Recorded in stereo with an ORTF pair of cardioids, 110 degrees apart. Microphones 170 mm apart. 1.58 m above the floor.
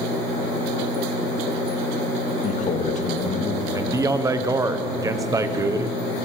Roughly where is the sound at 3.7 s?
Ahead.